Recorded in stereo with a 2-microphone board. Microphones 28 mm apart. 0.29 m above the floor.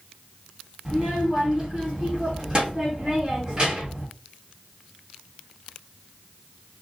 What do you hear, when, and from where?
0.8 s a child speaking: 30° right (ahead or behind), 1.5 m